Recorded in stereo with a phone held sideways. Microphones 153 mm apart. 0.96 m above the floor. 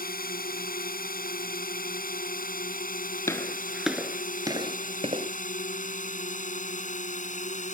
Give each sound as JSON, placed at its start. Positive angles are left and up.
{"t": 0.0, "sound": "a drone", "side_deg": 75}
{"t": 3.3, "sound": "footsteps", "side_deg": 20}